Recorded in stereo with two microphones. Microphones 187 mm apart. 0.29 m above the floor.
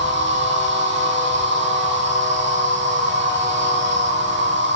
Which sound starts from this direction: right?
An insect, at 0.0 s.